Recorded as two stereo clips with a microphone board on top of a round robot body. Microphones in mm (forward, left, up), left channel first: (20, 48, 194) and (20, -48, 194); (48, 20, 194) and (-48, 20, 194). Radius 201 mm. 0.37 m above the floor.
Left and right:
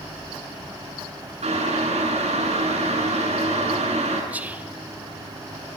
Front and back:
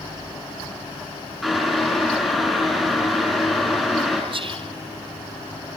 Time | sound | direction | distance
1.4 | boiling | 90° right | 6.5 m
4.3 | whispering | 165° right | 1.4 m